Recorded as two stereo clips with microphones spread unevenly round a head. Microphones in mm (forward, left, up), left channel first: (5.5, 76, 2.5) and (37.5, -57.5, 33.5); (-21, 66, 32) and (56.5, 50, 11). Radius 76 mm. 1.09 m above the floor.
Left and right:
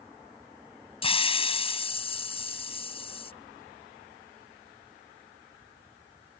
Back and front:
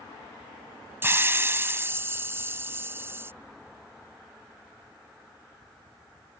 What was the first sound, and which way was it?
A hiss, 50° left.